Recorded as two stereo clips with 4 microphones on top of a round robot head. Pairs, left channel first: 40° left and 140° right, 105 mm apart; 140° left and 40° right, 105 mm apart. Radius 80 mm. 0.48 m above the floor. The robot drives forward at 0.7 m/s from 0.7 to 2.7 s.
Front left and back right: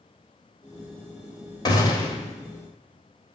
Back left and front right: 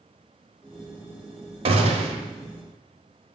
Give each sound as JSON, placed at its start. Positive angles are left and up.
{"t": 1.6, "sound": "a gunshot", "azimuth_deg": -10, "distance_m": 1.3}